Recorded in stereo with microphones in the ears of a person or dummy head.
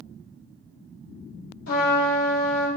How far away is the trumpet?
About 2.0 m.